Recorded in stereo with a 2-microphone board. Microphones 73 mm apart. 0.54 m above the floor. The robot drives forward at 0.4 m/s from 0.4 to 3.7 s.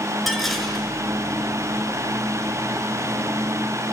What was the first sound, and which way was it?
Dishes clattering, centre (ahead or behind).